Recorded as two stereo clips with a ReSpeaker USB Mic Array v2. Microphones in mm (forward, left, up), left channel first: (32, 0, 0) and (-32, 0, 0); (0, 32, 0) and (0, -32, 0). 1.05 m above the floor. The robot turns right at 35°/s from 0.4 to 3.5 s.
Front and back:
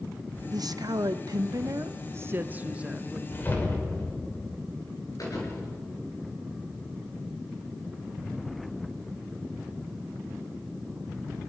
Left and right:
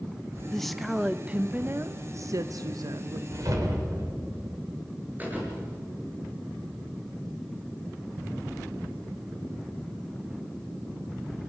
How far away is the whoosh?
About 3 m.